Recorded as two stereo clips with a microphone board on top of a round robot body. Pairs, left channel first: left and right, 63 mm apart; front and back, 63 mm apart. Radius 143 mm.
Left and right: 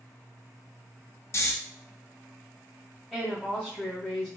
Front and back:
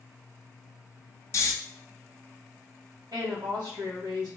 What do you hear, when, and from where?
1.3 s snoring: 45° left, 0.7 m
3.1 s a woman speaking: 170° left, 2.0 m